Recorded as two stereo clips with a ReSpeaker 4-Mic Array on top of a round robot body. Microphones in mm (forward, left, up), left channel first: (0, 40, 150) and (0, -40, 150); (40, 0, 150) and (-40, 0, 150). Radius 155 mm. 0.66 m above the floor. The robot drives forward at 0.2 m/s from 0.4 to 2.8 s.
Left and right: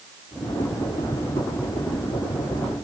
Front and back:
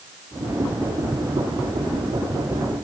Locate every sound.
Only background noise.